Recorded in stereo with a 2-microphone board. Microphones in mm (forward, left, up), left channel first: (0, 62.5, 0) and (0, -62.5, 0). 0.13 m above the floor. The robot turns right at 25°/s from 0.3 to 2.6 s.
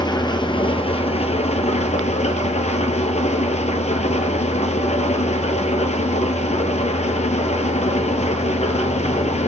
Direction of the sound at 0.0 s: 40° left.